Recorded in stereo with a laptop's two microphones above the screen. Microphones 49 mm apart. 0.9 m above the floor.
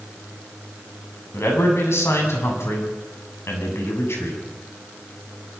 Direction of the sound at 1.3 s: 70° left (ahead or behind).